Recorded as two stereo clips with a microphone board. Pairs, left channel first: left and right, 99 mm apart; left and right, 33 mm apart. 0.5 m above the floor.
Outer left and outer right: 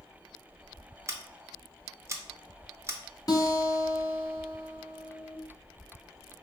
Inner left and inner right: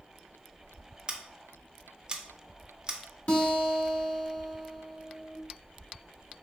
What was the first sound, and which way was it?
Scissors, 30° right (ahead or behind).